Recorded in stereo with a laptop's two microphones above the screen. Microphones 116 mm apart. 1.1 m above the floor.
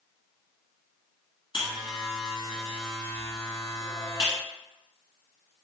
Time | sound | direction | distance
1.5 | a buzzer | 45° left (ahead or behind) | 1.4 m